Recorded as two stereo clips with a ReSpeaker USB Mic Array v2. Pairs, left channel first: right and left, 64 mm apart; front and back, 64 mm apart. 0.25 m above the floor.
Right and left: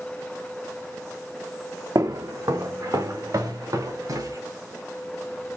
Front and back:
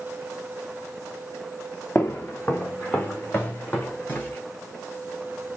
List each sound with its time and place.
1.9 s footsteps: 60° left, 0.9 m; by 4.4 s 65° left, 3 m